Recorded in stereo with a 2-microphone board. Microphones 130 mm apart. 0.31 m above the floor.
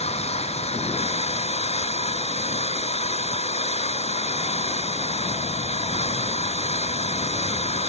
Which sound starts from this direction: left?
An engine running, at 0.0 s.